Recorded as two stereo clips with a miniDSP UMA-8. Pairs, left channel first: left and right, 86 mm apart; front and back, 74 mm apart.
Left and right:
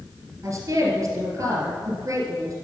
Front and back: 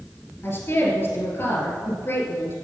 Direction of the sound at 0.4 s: 50° right.